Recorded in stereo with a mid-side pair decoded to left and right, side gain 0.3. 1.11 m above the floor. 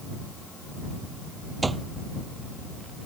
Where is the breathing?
I don't hear breathing.